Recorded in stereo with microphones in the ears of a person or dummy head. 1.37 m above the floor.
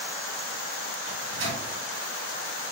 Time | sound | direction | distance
1.1 | a microwave | 70° right (ahead or behind) | 1.4 m